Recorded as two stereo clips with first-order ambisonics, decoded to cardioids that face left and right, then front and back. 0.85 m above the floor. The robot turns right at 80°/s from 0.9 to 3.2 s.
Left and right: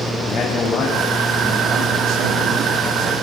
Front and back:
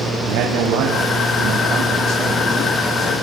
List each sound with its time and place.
0.2 s a man speaking: 155° left, 5.5 m; by 3.1 s 25° right, 5.5 m